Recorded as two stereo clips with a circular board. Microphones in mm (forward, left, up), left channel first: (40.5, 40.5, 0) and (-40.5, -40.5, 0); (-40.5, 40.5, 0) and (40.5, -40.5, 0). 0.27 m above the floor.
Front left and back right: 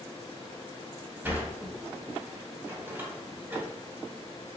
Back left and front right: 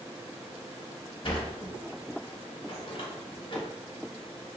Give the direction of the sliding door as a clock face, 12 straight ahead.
7 o'clock.